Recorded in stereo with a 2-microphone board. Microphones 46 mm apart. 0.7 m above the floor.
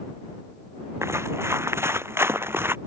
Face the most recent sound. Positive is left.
turn(degrees=-55)  # may be behind; listen again after turning